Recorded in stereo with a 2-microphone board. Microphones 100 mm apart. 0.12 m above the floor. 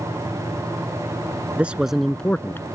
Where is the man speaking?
15° right (ahead or behind); by 2.7 s 25° left (ahead or behind).